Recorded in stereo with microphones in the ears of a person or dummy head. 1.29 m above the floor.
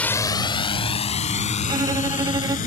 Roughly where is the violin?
Centre.